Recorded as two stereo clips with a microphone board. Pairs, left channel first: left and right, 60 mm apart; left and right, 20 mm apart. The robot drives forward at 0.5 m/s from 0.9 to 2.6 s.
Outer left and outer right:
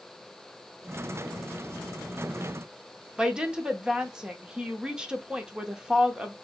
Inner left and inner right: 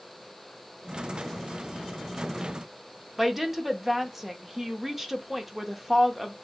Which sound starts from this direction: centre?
A woman speaking, at 3.2 s.